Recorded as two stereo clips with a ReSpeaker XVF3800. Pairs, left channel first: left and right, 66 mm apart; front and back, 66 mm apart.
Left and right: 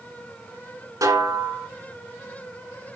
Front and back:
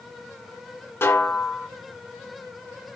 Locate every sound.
1.0 s a snare drum: 55° right, 2.5 m